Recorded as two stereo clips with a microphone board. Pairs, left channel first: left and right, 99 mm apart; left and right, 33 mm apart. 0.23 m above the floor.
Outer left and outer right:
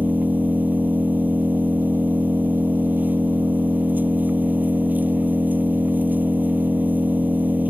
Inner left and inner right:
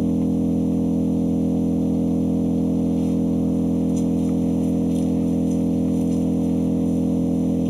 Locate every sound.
0.0 s an engine running: 15° right (ahead or behind)